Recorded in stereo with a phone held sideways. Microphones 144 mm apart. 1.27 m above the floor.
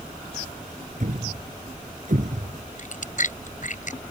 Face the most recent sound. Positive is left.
turn(degrees=60)  # may be behind; listen again after turning